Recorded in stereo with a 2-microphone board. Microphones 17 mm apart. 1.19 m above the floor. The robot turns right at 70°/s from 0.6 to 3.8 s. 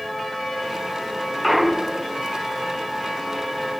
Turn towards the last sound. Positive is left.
turn(degrees=5)